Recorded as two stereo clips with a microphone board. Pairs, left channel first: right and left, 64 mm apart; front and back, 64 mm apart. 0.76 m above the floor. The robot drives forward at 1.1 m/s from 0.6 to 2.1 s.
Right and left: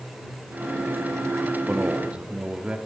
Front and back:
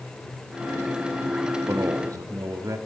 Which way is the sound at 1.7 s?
145° left.